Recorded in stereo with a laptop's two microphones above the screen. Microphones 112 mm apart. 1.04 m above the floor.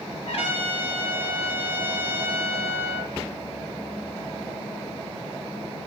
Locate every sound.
0.3 s a trumpet: 65° left (ahead or behind), 0.7 m